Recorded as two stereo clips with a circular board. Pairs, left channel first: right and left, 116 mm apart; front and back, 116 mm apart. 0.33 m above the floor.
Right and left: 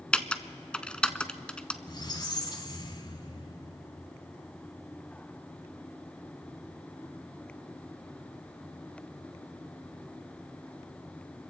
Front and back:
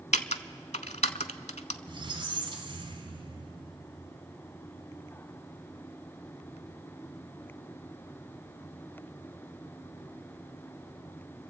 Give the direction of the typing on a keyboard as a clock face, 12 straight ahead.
12 o'clock.